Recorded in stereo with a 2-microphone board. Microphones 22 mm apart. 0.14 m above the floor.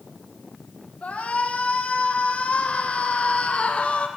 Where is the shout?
80° left, 6 m; by 4.1 s 65° left (ahead or behind), 5 m.